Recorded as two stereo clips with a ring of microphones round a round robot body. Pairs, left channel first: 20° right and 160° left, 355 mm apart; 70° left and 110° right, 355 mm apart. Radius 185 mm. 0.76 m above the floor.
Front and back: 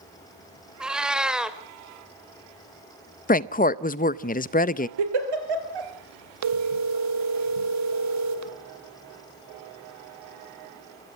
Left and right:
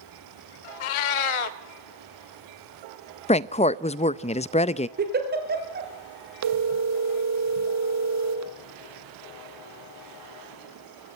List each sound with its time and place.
0.8 s a cat meowing: 70° left, 0.9 m
3.3 s a woman speaking: 15° left, 0.5 m
5.0 s a giggle: 175° right, 3 m
6.4 s a phone ringing: 160° right, 1.2 m